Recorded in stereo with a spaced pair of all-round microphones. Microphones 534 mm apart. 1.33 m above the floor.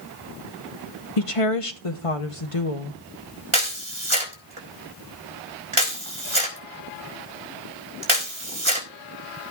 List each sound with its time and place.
1.2 s a woman speaking: 75° left (ahead or behind), 0.9 m
3.5 s a camera shutter: 65° right (ahead or behind), 4 m